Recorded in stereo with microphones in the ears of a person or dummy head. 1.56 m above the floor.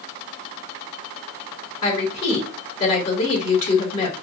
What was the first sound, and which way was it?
A woman speaking, 40° left (ahead or behind).